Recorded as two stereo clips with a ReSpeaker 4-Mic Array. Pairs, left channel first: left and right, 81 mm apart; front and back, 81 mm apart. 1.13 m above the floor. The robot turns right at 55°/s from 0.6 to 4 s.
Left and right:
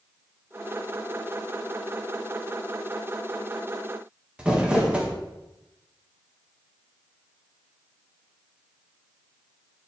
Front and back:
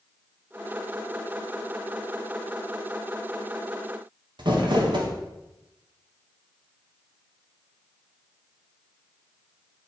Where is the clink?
I don't hear a clink.